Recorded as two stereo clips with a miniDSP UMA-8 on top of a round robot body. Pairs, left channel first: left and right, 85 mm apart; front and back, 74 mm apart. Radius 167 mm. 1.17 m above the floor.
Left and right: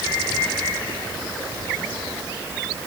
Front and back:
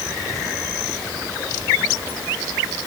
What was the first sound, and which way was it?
Only background noise.